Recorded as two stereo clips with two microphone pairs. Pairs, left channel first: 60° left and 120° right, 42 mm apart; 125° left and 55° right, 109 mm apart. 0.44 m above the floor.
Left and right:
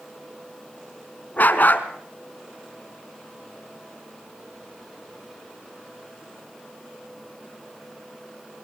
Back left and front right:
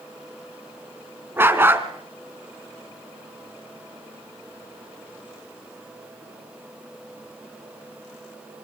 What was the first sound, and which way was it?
A dog barking, 20° left.